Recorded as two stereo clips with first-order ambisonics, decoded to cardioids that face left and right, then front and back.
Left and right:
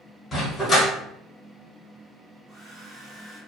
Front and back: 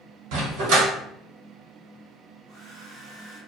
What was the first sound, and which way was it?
A dog barking, 160° left.